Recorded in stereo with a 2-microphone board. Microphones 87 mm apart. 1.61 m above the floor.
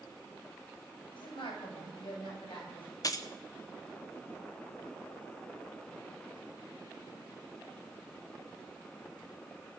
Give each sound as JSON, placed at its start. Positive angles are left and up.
{"t": 1.1, "sound": "a woman speaking", "side_deg": 75, "distance_m": 8.0}
{"t": 3.0, "sound": "keys jangling", "side_deg": 45, "distance_m": 0.8}